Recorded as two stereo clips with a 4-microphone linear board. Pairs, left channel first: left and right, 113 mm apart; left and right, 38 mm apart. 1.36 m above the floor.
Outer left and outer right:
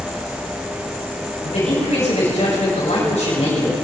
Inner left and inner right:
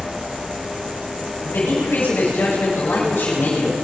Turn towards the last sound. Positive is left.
turn(degrees=85)